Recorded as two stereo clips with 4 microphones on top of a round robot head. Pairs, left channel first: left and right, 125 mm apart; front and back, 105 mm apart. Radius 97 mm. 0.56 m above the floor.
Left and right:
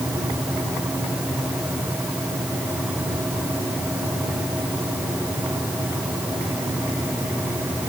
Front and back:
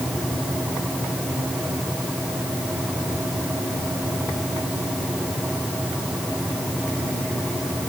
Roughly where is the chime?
No chime in this recording.